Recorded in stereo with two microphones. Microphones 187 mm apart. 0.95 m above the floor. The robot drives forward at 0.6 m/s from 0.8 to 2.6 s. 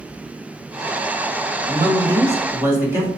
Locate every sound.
1.7 s a man speaking: 25° right (ahead or behind), 0.7 m; by 3.1 s 15° right (ahead or behind), 1.3 m